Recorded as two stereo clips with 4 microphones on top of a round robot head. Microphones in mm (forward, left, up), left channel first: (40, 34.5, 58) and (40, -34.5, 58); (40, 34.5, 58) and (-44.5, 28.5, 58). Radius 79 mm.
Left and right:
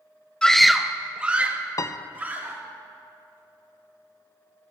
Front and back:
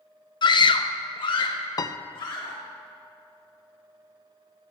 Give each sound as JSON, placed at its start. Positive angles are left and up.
{"t": 0.4, "sound": "a scream", "azimuth_deg": 15, "distance_m": 0.6}
{"t": 1.8, "sound": "a piano", "azimuth_deg": 45, "distance_m": 0.5}